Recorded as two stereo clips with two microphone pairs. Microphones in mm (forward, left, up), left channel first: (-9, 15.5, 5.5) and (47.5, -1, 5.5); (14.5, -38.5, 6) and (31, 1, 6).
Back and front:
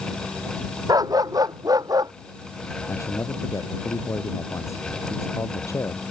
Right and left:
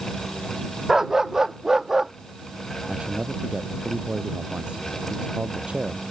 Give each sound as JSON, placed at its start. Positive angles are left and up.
{"t": 0.9, "sound": "a dog barking", "azimuth_deg": -15}
{"t": 2.9, "sound": "a man speaking", "azimuth_deg": 130}